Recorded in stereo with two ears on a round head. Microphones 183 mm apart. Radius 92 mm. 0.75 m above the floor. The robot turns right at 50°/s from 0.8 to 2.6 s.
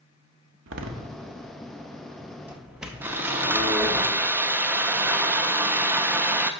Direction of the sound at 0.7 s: 70° right (ahead or behind).